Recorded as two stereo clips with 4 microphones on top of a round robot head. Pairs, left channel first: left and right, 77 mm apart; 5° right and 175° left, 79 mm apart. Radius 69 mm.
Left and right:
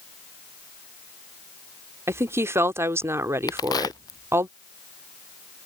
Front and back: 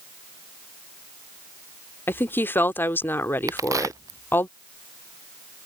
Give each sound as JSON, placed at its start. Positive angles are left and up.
{"t": 2.1, "sound": "a woman speaking", "azimuth_deg": -55}
{"t": 3.5, "sound": "a crack", "azimuth_deg": 125}